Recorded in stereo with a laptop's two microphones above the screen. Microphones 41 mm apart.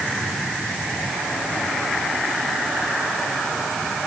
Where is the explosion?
I don't hear an explosion.